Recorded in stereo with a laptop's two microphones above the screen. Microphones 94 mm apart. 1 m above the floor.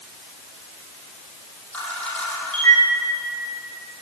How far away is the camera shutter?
About 8.5 m.